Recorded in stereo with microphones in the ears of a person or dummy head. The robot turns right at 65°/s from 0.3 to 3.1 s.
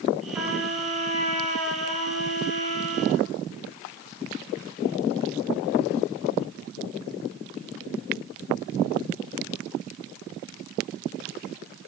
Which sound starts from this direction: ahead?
A trumpet, at 0.3 s.